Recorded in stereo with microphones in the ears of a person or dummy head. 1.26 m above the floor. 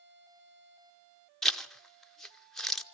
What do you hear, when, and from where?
1.4 s a zipper: centre (ahead or behind), 0.7 m